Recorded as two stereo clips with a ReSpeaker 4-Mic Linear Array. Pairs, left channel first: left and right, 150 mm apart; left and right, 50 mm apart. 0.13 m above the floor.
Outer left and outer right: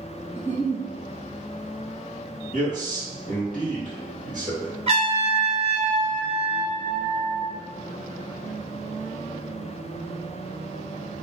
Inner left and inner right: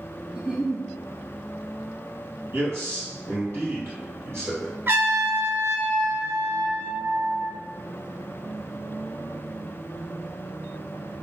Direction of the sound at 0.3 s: 15° right (ahead or behind).